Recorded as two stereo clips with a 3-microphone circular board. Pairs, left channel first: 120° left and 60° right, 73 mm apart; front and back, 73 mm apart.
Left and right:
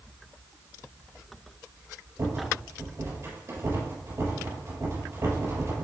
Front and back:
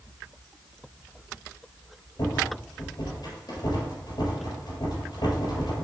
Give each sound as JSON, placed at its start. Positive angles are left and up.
{"t": 2.2, "sound": "a rattle", "azimuth_deg": -10, "distance_m": 3.5}